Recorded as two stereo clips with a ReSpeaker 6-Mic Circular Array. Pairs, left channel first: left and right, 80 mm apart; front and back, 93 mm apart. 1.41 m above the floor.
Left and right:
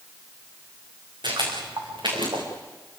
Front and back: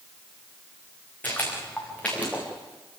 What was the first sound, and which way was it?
Footsteps, 70° right.